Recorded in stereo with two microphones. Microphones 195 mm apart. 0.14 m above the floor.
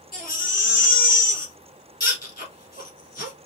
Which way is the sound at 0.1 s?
50° left (ahead or behind).